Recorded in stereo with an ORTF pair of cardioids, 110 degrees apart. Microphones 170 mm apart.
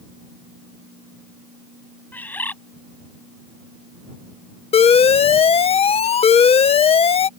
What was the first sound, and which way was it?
A bird, 10° left.